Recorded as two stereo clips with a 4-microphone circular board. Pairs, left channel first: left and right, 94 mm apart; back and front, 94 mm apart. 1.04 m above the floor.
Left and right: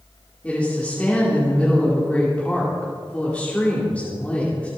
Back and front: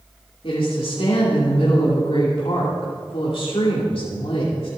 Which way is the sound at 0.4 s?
165° left.